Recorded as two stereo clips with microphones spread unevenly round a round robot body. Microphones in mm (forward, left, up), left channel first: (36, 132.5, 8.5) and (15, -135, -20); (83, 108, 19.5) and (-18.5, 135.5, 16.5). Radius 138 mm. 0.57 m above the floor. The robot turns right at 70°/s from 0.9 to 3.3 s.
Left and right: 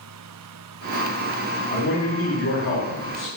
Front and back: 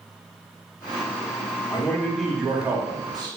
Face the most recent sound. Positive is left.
turn(degrees=155)